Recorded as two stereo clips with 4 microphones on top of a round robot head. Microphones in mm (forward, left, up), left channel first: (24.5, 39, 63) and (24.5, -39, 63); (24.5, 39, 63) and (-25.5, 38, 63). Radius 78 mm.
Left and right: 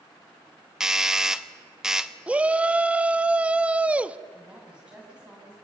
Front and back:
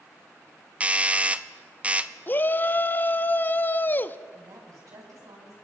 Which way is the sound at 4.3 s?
170° right.